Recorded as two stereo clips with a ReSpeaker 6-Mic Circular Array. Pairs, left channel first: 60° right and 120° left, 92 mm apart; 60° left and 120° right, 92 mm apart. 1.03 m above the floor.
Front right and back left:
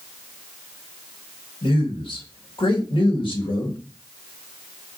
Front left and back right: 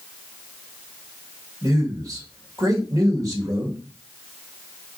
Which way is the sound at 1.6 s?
70° right.